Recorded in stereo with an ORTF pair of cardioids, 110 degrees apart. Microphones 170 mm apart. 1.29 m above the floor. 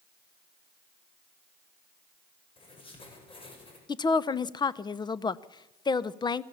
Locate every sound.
2.6 s writing: 30° left, 6 m
3.9 s a woman speaking: 25° left, 0.8 m